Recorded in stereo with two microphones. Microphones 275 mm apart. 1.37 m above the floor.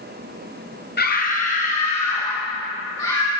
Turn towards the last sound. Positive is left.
turn(degrees=15)  # may be behind; listen again after turning